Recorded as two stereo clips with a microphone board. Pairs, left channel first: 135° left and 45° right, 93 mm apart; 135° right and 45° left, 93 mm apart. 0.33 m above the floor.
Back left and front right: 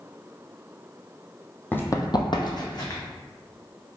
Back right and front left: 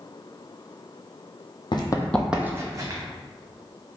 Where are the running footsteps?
155° right, 0.6 m; by 3.0 s 90° left, 1.1 m.